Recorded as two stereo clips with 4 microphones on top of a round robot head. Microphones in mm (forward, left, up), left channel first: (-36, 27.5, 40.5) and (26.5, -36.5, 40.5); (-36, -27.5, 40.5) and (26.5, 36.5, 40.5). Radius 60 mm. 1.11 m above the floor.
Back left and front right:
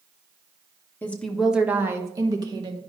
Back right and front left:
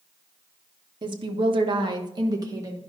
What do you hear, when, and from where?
1.0 s a woman speaking: 65° left, 0.9 m; by 2.8 s 10° right, 1.4 m